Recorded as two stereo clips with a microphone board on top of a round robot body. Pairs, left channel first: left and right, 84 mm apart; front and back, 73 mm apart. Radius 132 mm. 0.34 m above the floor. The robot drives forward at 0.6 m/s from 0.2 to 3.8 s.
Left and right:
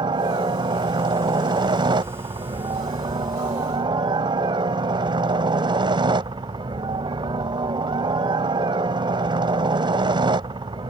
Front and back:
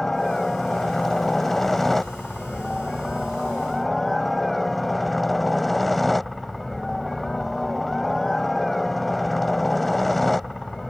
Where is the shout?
No shout in this recording.